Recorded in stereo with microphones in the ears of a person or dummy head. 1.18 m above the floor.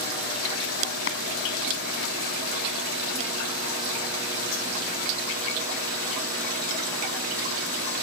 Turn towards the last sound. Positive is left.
turn(degrees=65)  # may be behind; listen again after turning